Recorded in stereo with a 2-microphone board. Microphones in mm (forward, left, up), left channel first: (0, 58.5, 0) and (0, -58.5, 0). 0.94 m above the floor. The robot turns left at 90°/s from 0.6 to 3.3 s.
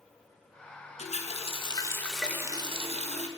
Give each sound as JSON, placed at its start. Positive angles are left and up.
{"t": 1.0, "sound": "a running tap", "azimuth_deg": 105, "distance_m": 0.5}